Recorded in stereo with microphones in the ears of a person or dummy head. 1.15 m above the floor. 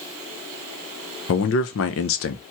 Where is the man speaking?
65° left (ahead or behind), 0.8 m.